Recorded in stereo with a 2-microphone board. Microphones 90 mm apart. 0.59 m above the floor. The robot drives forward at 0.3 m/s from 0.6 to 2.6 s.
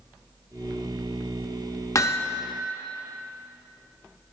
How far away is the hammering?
About 0.6 m.